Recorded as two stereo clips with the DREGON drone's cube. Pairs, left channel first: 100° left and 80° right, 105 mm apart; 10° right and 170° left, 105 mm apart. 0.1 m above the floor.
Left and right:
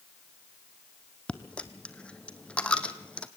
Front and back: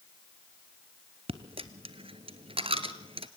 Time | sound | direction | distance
1.3 | a dropped coin | 175° left | 1.1 m